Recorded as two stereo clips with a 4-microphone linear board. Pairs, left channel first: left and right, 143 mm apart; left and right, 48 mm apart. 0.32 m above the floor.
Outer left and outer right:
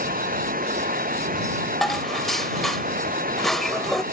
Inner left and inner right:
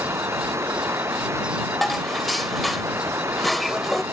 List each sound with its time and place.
0.0 s running water: 80° right
1.8 s dishes clattering: centre (ahead or behind)